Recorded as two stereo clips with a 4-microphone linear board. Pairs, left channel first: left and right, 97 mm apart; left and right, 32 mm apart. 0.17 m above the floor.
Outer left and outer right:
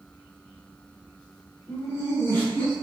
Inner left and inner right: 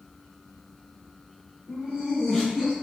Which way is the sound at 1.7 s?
40° left (ahead or behind).